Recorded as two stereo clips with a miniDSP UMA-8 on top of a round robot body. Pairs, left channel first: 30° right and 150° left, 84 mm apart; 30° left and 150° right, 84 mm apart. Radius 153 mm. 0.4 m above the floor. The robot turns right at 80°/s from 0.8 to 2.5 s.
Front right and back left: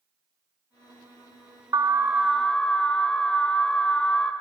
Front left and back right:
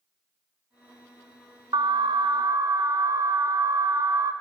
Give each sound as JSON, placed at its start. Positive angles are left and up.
{"t": 1.7, "sound": "an alarm", "azimuth_deg": -170, "distance_m": 0.8}